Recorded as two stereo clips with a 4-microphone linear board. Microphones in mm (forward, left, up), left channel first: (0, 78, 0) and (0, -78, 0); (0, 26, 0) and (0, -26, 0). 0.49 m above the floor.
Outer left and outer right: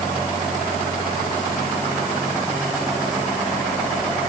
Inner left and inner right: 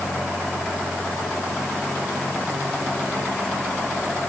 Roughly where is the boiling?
No boiling in this recording.